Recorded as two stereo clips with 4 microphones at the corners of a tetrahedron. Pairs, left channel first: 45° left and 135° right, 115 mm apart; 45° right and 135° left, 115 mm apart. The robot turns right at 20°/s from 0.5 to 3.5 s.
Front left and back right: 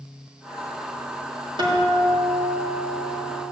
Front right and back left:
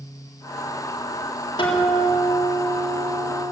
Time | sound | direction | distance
1.6 | a guitar | 90° right | 3.5 m